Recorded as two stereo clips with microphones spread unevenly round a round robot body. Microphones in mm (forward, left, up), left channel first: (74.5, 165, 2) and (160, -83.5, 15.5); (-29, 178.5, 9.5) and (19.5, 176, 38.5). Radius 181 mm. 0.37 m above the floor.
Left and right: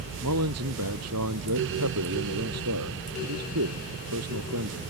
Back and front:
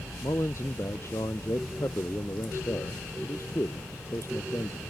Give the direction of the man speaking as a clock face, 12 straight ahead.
4 o'clock.